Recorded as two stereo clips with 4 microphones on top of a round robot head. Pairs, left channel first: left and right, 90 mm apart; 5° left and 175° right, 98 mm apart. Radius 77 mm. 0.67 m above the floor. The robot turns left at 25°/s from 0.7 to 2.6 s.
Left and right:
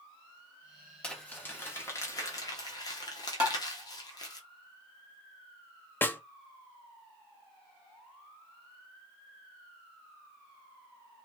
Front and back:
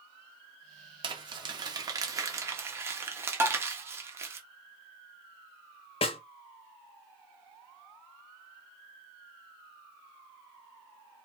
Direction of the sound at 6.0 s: 25° left.